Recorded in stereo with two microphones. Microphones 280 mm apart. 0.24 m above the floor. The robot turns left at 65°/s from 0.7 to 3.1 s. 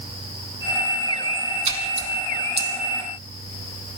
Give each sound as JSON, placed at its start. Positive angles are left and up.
{"t": 1.6, "sound": "a splash", "side_deg": -85, "distance_m": 3.0}